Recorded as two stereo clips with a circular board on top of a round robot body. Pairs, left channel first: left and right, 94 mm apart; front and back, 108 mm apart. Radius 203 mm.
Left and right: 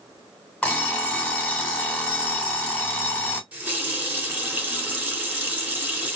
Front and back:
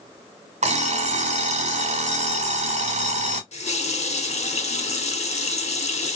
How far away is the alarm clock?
About 1.1 m.